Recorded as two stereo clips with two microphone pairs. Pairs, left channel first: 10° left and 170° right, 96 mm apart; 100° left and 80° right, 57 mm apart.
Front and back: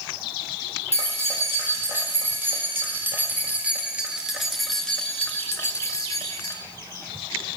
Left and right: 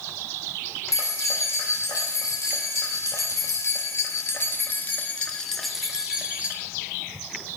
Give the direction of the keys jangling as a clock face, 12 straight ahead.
8 o'clock.